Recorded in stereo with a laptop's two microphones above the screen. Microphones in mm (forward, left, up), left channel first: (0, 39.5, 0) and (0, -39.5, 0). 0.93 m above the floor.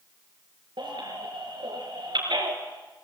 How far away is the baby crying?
About 5 m.